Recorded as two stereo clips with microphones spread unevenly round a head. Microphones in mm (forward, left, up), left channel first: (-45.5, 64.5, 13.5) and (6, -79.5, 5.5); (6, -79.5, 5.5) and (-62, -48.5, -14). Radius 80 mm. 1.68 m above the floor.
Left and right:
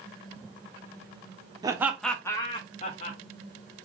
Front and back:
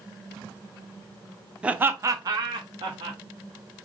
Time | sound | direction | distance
1.6 | laughter | 110° right | 0.6 m